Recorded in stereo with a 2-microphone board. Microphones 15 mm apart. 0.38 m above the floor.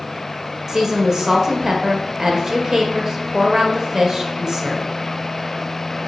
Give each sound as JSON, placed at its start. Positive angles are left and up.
{"t": 0.7, "sound": "a woman speaking", "side_deg": -35, "distance_m": 1.3}